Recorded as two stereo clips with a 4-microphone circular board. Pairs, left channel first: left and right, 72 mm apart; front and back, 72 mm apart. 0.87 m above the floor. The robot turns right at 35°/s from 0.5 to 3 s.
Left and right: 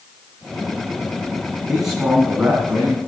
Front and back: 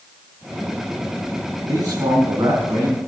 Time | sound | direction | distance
1.7 | a man speaking | straight behind | 7.5 m